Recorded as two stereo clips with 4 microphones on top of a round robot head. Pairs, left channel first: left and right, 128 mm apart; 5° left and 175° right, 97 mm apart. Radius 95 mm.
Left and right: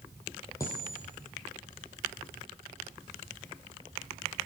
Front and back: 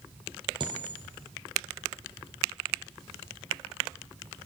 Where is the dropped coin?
160° left, 1.4 m.